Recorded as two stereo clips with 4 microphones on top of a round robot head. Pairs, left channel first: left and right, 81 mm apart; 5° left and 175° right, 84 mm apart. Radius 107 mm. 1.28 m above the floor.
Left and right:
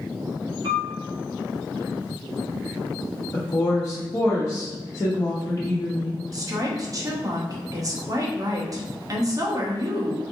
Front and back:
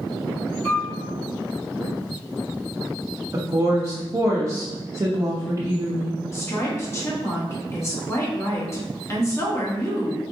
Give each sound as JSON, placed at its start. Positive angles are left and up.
{"t": 0.6, "sound": "a piano", "azimuth_deg": -60, "distance_m": 1.5}
{"t": 3.3, "sound": "a woman speaking", "azimuth_deg": 135, "distance_m": 0.7}
{"t": 6.3, "sound": "a woman speaking", "azimuth_deg": -50, "distance_m": 1.0}